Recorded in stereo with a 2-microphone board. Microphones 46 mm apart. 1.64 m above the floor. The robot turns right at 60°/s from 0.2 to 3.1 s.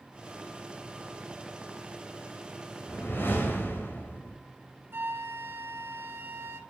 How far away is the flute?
About 1.2 m.